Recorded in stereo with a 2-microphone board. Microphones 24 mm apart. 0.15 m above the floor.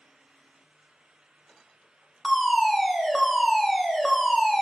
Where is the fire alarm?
5° left (ahead or behind), 2 m.